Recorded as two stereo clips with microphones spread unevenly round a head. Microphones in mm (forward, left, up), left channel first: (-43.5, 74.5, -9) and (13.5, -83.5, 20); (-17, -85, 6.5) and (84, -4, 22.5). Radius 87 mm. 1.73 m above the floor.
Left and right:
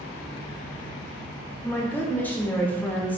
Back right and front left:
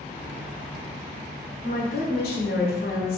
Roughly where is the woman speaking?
Behind.